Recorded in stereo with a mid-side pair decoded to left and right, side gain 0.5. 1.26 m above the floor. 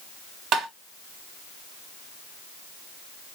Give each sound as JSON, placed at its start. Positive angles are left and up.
{"t": 0.5, "sound": "tapping", "azimuth_deg": -65, "distance_m": 1.2}